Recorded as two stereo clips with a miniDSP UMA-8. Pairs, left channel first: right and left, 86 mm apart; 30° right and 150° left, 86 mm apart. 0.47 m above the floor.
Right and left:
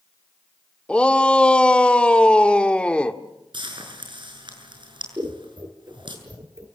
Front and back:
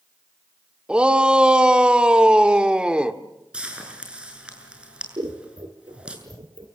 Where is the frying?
75° left, 7 m.